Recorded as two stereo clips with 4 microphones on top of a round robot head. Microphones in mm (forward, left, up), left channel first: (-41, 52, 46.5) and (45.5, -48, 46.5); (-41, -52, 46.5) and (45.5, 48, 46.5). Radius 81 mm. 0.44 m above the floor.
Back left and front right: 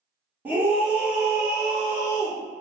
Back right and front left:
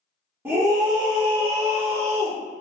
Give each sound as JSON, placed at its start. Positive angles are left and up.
{"t": 0.5, "sound": "a scream", "azimuth_deg": 0, "distance_m": 1.0}